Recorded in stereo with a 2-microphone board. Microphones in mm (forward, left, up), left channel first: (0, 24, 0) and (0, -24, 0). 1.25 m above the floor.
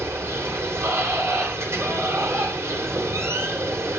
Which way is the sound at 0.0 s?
70° right (ahead or behind).